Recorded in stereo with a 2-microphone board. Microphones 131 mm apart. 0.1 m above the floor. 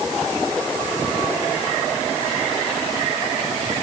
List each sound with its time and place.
Only background noise.